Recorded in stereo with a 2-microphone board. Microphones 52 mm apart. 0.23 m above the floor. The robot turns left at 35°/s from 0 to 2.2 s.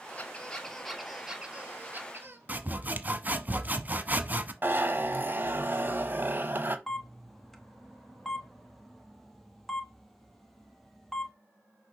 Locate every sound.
0.2 s a squeak: 30° left, 1.5 m; by 2.4 s 45° right, 1.5 m
2.5 s sawing: 30° right (ahead or behind), 0.9 m
4.6 s a zipper: 40° right (ahead or behind), 1.0 m
6.9 s a camera shutter: 5° left (ahead or behind), 1.0 m